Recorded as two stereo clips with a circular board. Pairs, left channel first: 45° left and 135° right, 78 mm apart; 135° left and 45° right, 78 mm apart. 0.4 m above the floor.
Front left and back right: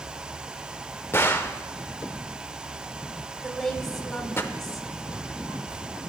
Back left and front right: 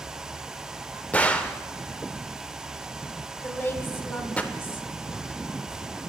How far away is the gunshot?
About 0.5 m.